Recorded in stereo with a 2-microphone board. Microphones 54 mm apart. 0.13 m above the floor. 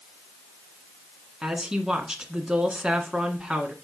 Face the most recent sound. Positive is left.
turn(degrees=-15)  # may be behind; listen again after turning